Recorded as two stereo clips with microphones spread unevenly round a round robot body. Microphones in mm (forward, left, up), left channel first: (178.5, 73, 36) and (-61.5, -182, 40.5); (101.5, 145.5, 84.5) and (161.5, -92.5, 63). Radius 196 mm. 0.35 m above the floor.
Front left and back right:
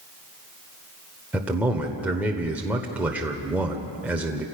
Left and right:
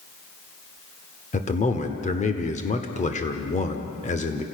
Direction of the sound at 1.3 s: 145° left.